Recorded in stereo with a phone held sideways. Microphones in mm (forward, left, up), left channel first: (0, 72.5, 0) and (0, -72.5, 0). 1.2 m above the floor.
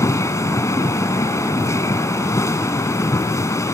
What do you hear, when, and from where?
0.0 s a machine running: 20° left (ahead or behind)